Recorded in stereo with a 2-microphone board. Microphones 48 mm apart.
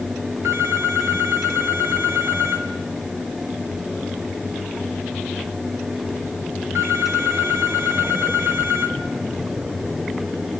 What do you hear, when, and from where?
0.4 s a phone ringing: 80° right, 3 m